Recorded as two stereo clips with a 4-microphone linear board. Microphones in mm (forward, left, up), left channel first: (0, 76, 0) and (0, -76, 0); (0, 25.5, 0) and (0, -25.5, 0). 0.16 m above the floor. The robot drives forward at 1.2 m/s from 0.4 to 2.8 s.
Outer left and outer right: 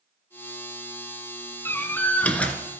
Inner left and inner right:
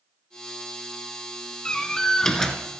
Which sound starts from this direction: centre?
A door slam, at 1.6 s.